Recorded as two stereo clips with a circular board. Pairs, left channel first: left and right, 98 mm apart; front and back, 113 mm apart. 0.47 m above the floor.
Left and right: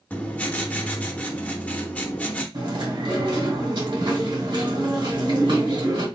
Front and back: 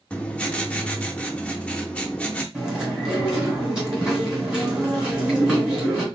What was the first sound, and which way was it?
Writing, 55° left.